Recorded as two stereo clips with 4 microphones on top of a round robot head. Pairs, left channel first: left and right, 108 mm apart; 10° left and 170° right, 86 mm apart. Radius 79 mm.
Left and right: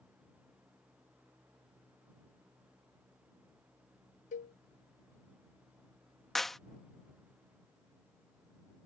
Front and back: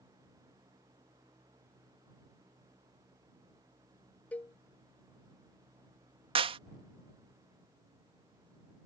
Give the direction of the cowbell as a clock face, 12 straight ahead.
9 o'clock.